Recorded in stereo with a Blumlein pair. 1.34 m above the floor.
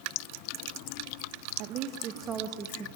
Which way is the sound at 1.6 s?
40° right.